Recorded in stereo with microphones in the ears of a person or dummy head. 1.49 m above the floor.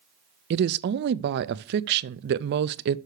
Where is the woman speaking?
55° right (ahead or behind), 0.5 m.